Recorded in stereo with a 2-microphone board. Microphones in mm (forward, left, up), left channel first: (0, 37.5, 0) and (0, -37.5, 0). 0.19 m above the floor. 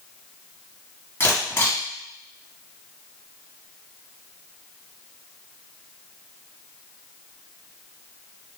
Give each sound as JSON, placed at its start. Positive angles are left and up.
{"t": 1.2, "sound": "a camera shutter", "side_deg": 30, "distance_m": 1.8}